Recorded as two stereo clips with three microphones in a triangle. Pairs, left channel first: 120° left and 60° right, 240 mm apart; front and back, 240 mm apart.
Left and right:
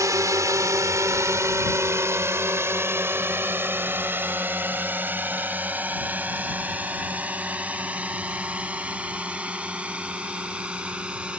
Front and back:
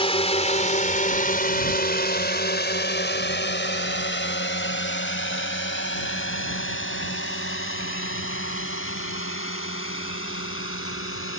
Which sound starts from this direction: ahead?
A drone, at 0.0 s.